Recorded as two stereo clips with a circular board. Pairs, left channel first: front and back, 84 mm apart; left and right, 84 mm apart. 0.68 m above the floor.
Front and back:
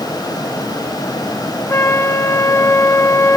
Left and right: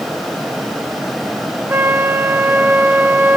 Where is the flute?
40° right, 0.7 m.